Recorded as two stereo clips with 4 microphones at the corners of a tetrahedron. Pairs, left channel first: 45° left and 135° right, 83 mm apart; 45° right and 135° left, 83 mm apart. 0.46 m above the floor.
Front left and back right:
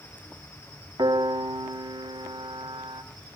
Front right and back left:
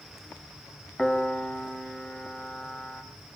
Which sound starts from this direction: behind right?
A piano, at 1.0 s.